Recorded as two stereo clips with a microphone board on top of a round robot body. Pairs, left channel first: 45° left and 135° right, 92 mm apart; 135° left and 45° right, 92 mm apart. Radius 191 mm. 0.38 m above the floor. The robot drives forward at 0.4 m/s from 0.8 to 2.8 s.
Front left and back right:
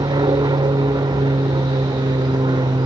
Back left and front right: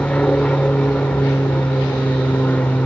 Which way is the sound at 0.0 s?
150° right.